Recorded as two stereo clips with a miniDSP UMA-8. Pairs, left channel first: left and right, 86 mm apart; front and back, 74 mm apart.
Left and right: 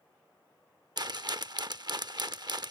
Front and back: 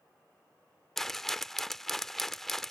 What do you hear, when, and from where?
1.0 s a rattle: 85° right